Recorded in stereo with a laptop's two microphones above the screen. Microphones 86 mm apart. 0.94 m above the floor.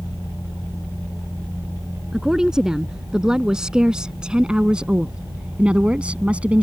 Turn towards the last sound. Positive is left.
turn(degrees=-15)  # may be behind; listen again after turning